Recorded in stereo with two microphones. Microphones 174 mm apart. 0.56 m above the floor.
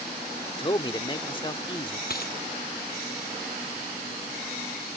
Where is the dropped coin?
60° left (ahead or behind).